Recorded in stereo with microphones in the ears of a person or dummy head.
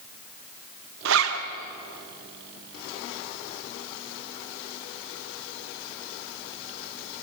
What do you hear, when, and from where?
1.1 s a zipper: 80° right, 1.7 m